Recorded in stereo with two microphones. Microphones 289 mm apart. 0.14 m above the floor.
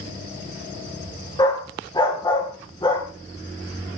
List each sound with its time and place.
1.4 s a dog barking: 15° left (ahead or behind), 7 m